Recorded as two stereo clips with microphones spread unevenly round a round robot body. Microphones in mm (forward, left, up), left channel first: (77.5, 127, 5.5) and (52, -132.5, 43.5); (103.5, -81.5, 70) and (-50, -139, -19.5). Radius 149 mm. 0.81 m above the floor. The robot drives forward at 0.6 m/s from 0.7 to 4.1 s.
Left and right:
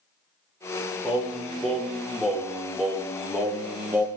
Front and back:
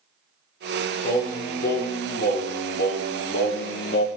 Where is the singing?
5° right, 3 m; by 4.1 s 10° right, 1.3 m.